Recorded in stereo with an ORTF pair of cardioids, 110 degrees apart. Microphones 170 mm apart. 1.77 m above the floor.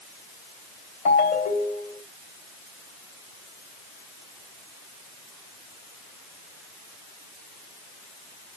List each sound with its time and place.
1.1 s a ringtone: 65° left, 3.5 m